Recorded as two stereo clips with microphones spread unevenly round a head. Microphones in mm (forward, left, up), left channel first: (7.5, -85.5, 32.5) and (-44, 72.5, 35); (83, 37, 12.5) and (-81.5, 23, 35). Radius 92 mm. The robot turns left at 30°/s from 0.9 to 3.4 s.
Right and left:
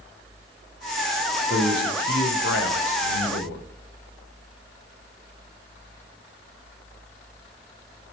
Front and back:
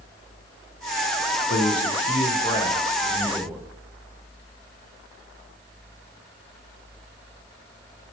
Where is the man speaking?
35° right, 0.9 m; by 3.6 s 90° right, 0.9 m.